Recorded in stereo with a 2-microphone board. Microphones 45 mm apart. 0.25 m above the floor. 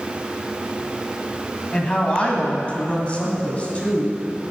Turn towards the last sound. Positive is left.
turn(degrees=25)  # may be behind; listen again after turning